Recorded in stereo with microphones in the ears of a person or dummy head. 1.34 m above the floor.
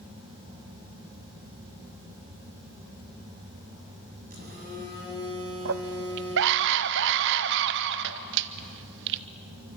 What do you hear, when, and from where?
4.3 s a phone buzzing: 45° right (ahead or behind), 7 m
5.7 s a scream: 60° right (ahead or behind), 0.7 m